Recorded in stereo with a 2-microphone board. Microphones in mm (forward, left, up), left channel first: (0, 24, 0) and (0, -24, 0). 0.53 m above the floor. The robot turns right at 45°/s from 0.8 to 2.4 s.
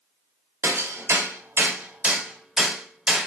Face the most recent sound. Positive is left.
turn(degrees=-10)  # may be behind; listen again after turning